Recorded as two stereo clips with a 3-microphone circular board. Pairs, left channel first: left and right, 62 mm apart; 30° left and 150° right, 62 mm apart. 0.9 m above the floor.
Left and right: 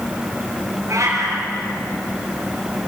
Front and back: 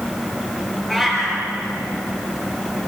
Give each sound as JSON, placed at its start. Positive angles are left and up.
{"t": 0.9, "sound": "a cat meowing", "azimuth_deg": -55, "distance_m": 5.0}